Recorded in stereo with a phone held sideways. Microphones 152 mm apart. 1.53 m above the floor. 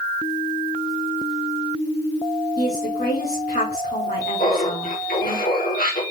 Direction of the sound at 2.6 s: 80° left.